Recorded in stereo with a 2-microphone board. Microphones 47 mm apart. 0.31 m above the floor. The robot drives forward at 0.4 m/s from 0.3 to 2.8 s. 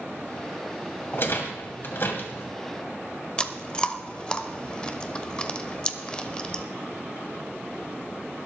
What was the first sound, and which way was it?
A rattle, 55° left (ahead or behind).